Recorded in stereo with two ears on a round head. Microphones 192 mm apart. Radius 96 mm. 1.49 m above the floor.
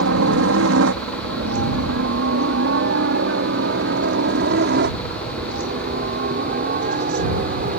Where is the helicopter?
65° right (ahead or behind); by 7.8 s 40° right (ahead or behind).